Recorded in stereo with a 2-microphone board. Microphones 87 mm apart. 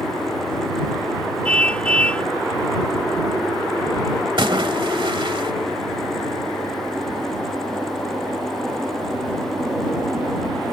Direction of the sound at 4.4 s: 70° right (ahead or behind).